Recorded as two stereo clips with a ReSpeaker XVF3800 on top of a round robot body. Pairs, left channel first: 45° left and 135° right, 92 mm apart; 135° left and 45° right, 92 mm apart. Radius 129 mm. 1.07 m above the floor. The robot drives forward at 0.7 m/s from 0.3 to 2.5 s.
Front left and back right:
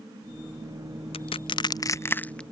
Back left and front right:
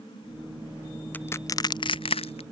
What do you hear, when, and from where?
1.1 s crushing: 60° left; by 2.4 s 125° left